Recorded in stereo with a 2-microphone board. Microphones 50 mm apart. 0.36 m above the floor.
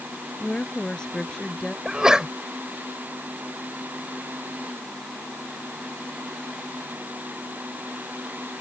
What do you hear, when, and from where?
0.4 s a woman speaking: 20° left (ahead or behind); by 1.8 s 10° left (ahead or behind)
1.9 s a sneeze: 15° right (ahead or behind)